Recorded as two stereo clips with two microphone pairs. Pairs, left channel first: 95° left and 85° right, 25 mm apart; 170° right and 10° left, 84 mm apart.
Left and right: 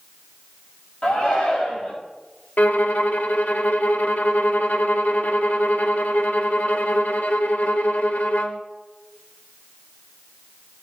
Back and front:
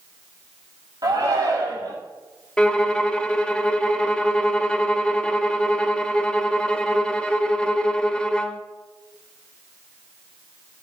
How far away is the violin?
About 0.9 m.